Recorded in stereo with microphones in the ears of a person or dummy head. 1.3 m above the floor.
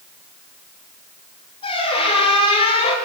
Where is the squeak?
30° left (ahead or behind), 6.5 m.